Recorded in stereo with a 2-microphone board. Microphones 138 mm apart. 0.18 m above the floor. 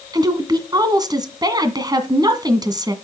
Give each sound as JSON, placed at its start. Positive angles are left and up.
{"t": 0.1, "sound": "a woman speaking", "side_deg": -30, "distance_m": 1.8}